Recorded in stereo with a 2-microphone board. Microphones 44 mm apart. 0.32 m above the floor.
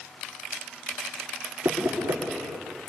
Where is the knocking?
75° right (ahead or behind), 4.5 m.